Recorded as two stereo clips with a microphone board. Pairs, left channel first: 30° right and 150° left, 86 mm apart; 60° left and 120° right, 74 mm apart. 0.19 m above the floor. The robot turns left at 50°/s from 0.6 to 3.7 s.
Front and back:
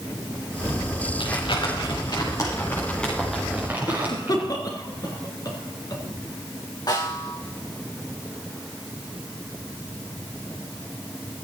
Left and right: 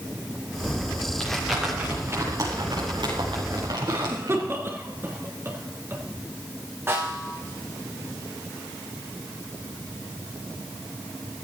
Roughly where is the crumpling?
Ahead.